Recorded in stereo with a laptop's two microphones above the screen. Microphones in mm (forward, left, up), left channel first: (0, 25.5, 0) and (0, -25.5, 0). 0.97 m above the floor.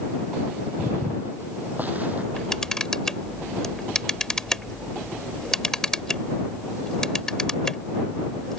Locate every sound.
0.8 s footsteps: 55° right (ahead or behind); by 2.2 s 30° right (ahead or behind)
2.3 s a camera shutter: 10° left (ahead or behind)